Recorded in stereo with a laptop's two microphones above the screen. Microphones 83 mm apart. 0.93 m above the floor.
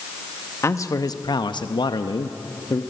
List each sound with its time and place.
0.6 s a man speaking: 35° left (ahead or behind), 0.9 m; by 2.8 s 45° left (ahead or behind), 1.2 m